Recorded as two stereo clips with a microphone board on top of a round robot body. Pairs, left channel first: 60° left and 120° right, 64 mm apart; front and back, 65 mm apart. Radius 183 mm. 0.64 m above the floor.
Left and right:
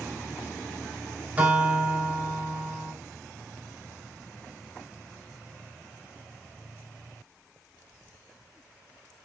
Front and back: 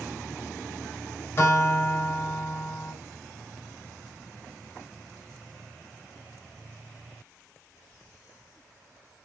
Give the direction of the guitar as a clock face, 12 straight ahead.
2 o'clock.